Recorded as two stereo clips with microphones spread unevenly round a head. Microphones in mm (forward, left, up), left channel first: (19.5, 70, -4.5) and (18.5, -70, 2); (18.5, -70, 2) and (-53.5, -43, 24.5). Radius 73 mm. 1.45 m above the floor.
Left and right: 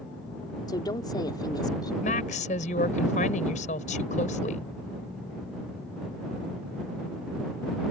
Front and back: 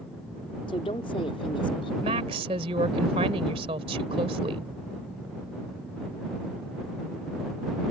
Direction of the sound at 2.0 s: 135° left.